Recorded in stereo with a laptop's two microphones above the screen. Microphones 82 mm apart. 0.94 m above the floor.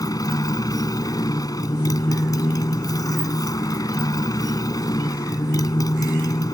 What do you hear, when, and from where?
0.0 s a motorcycle: 50° left (ahead or behind)